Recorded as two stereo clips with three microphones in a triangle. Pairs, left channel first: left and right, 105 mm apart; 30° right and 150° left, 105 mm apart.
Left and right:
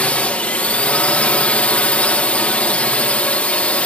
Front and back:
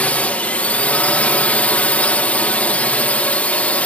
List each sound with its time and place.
0.0 s a drone: 30° left